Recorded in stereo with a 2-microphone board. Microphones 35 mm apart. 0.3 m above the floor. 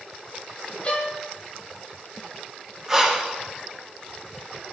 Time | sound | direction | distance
0.8 | a violin | 35° left (ahead or behind) | 1.2 m
2.9 | breathing | 10° right (ahead or behind) | 1.4 m